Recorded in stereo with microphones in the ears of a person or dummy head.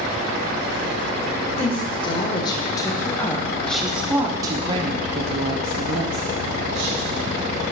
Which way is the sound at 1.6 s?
30° left (ahead or behind).